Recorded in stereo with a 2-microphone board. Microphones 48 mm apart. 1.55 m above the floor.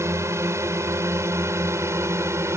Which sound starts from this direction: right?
A drone, at 0.0 s.